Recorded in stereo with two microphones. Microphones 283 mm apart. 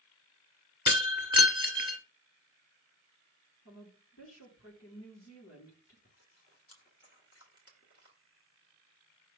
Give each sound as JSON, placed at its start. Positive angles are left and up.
{"t": 0.9, "sound": "breaking glass", "side_deg": -15, "distance_m": 1.8}
{"t": 3.6, "sound": "a woman speaking", "side_deg": 60, "distance_m": 4.5}
{"t": 6.0, "sound": "chewing", "side_deg": 55, "distance_m": 1.9}